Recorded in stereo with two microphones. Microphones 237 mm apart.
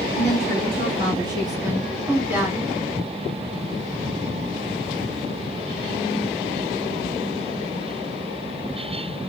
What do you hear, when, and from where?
0.1 s a woman speaking: 30° right (ahead or behind), 1.5 m; by 2.7 s 5° right (ahead or behind), 1.8 m